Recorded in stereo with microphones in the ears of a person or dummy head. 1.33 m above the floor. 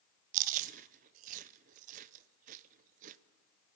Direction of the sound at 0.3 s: 45° right (ahead or behind).